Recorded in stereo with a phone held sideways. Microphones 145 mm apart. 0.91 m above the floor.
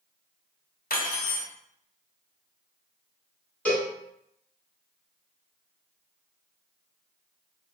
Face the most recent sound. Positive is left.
turn(degrees=10)  # may be behind; listen again after turning